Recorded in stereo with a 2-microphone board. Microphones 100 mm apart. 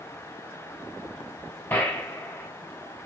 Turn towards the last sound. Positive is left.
turn(degrees=25)  # may be behind; listen again after turning